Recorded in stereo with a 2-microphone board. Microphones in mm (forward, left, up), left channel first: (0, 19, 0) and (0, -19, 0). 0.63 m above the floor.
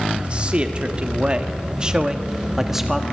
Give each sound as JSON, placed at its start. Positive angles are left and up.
{"t": 0.2, "sound": "a man speaking", "side_deg": -30, "distance_m": 1.6}